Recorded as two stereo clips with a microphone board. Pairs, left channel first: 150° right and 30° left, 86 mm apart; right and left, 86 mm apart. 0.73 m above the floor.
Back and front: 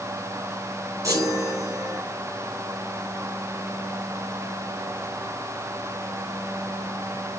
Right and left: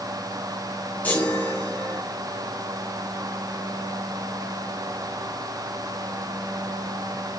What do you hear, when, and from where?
1.0 s a chime: 20° right, 7 m